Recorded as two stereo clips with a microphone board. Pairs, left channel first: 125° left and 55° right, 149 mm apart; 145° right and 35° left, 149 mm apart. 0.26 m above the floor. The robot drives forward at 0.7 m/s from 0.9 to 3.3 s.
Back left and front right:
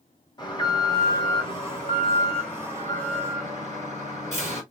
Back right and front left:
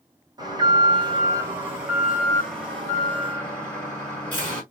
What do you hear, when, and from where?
0.4 s an alarm: 80° left, 2 m; by 4.6 s 140° left, 2.5 m